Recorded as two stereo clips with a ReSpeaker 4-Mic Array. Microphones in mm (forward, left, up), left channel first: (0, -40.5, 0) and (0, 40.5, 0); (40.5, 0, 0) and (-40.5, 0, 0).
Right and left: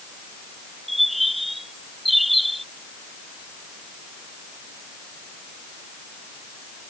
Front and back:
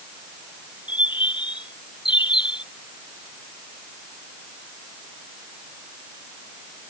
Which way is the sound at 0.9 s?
Straight ahead.